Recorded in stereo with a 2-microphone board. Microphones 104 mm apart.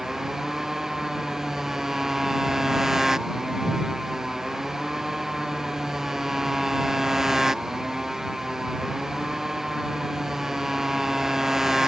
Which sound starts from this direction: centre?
A motorcycle, at 0.0 s.